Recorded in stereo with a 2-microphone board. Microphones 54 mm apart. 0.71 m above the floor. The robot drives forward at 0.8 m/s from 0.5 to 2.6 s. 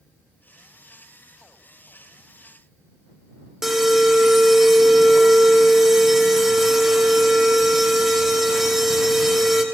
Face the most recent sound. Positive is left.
turn(degrees=-5)  # may be behind; listen again after turning